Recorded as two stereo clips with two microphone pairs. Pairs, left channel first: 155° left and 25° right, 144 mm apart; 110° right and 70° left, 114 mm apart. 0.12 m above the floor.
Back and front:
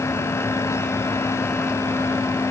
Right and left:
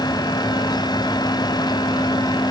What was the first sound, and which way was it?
Only background noise.